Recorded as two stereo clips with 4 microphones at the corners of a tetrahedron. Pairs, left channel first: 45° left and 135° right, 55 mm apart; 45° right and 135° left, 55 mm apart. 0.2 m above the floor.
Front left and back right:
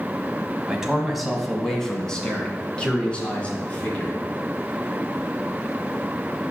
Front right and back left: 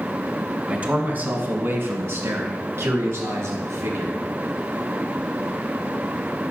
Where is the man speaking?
160° left, 1.1 m; by 4.2 s 110° left, 3 m.